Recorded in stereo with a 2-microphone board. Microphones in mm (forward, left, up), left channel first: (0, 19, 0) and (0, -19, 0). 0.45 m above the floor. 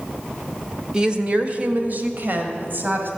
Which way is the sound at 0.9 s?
15° right (ahead or behind).